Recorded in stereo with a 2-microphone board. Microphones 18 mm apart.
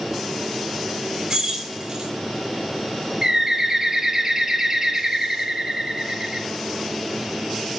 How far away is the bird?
About 1.0 m.